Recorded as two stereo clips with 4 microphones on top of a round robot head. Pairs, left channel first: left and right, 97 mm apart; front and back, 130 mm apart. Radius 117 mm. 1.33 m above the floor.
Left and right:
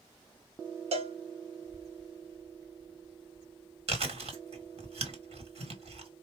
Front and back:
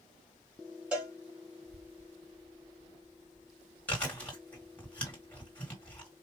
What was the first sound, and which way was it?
A cowbell, 95° right.